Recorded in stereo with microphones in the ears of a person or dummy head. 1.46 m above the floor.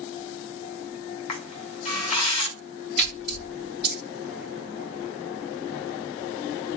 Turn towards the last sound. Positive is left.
turn(degrees=-5)  # may be behind; listen again after turning